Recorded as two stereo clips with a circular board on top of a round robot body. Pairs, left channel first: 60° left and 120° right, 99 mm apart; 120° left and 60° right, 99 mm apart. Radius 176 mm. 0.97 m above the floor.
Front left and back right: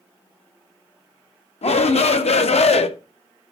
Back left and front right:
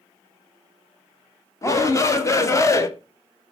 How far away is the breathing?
No breathing in this recording.